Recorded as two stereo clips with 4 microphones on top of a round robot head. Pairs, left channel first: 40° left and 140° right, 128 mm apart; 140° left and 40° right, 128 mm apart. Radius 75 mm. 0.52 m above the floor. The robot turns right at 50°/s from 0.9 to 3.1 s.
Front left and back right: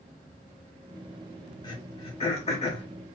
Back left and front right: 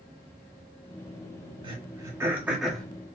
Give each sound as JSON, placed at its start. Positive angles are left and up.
{"t": 1.6, "sound": "throat clearing", "azimuth_deg": -5, "distance_m": 1.6}